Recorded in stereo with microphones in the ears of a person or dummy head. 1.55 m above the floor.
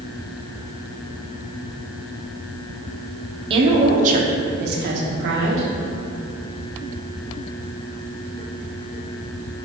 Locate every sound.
3.5 s a woman speaking: 35° right (ahead or behind), 1.2 m; by 5.7 s 75° right (ahead or behind), 1.4 m